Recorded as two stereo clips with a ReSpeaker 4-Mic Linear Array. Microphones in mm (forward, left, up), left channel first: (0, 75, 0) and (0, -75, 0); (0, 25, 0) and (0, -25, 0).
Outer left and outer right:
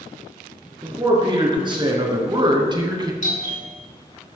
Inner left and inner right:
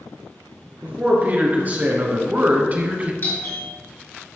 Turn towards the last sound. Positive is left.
turn(degrees=55)  # may be behind; listen again after turning